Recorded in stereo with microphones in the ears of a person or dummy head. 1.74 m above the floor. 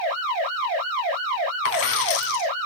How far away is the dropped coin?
About 3 m.